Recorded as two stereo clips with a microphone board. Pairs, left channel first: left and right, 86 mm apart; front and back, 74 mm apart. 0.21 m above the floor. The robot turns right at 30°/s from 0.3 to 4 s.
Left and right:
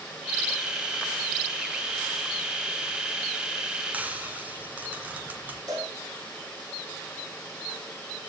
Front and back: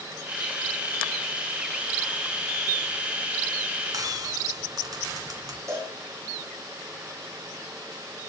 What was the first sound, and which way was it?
Frying, 160° right.